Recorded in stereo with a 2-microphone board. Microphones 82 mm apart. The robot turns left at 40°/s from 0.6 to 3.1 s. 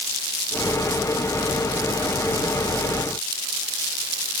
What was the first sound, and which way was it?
Only background noise.